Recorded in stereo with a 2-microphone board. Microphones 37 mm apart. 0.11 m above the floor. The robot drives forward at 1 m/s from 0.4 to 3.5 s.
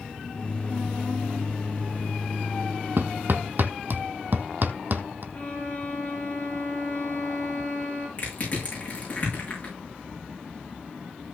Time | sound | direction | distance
3.0 | hammering | 70° right (ahead or behind) | 1.2 m
5.3 | a violin | 35° left (ahead or behind) | 3.5 m
8.2 | crushing | 35° left (ahead or behind) | 8 m